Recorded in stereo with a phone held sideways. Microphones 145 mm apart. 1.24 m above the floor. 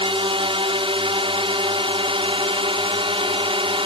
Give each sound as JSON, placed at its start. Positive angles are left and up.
{"t": 0.0, "sound": "a drone", "side_deg": -40}